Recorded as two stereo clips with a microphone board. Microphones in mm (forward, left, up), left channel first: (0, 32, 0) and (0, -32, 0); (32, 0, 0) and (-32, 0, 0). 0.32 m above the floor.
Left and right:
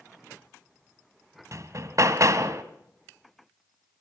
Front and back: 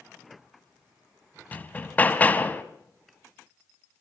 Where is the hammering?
60° right, 1.8 m.